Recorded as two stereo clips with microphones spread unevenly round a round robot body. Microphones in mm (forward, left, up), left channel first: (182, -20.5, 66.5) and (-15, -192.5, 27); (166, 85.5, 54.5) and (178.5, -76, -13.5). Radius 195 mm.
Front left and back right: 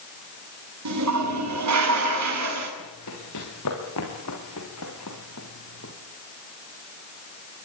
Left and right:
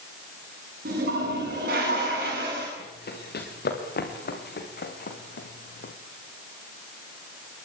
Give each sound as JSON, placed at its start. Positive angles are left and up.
{"t": 0.8, "sound": "a toilet flushing", "azimuth_deg": -135, "distance_m": 8.5}
{"t": 2.8, "sound": "running footsteps", "azimuth_deg": 90, "distance_m": 6.5}